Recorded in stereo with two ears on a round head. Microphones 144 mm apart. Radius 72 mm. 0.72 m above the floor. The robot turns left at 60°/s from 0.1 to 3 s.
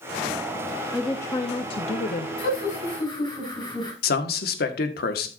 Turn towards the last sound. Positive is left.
turn(degrees=65)  # may be behind; listen again after turning